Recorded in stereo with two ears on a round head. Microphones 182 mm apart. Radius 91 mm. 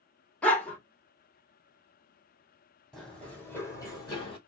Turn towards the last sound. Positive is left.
turn(degrees=30)  # may be behind; listen again after turning